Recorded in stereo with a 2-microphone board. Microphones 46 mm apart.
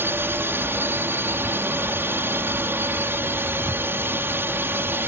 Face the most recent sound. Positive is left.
turn(degrees=-50)  # may be behind; listen again after turning